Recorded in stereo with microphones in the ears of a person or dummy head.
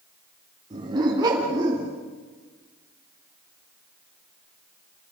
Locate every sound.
0.7 s a dog barking: 25° right (ahead or behind), 5 m; by 1.9 s 15° right (ahead or behind), 5 m